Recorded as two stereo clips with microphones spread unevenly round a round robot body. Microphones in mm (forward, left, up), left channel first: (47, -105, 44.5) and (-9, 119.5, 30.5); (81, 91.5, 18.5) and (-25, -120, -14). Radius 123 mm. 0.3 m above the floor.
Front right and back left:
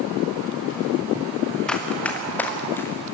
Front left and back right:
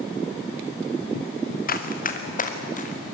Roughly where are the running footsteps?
Ahead.